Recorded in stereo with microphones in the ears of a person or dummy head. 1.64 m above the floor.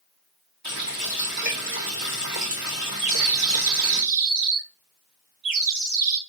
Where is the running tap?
55° right (ahead or behind), 2.5 m.